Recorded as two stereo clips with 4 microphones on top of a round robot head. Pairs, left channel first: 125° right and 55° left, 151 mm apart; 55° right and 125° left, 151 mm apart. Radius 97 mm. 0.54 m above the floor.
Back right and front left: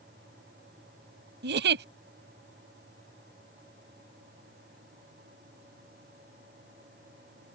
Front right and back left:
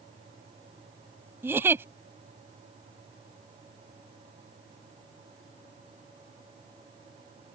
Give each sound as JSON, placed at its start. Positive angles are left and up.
{"t": 1.4, "sound": "a giggle", "azimuth_deg": 50}